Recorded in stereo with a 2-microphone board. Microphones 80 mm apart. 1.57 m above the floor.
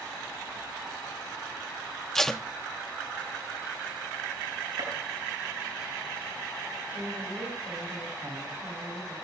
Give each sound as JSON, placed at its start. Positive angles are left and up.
{"t": 2.1, "sound": "tape being pulled", "side_deg": 5, "distance_m": 0.8}
{"t": 4.8, "sound": "a gunshot", "side_deg": -55, "distance_m": 8.5}
{"t": 6.9, "sound": "a woman speaking", "side_deg": -25, "distance_m": 9.5}